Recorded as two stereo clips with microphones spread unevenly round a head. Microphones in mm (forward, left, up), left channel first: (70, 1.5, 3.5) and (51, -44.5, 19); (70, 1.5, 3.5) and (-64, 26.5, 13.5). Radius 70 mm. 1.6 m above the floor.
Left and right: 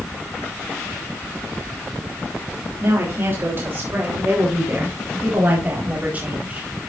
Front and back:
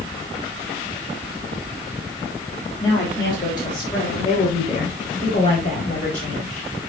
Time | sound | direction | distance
2.8 | a woman speaking | 80° right | 3.5 m